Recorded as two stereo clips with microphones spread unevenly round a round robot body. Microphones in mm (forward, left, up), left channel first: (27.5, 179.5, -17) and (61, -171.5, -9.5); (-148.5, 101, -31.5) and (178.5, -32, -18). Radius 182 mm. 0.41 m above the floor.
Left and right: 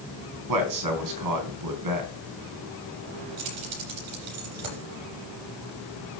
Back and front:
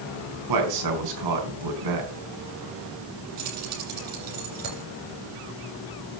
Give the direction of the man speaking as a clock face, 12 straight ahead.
2 o'clock.